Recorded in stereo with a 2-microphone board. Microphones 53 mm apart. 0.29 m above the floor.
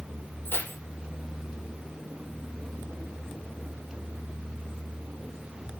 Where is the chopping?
I don't hear chopping.